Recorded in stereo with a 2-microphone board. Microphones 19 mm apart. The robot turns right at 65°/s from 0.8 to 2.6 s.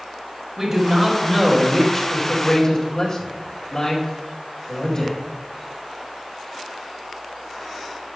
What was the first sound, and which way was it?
A man speaking, 35° right.